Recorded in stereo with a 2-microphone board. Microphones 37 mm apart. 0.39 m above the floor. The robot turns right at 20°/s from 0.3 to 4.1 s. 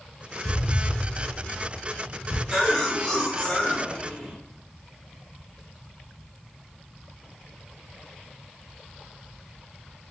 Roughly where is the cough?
Centre.